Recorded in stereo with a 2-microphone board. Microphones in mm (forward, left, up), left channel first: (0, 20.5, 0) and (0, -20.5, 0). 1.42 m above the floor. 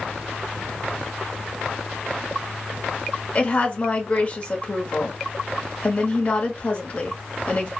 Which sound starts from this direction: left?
A woman speaking, at 3.4 s.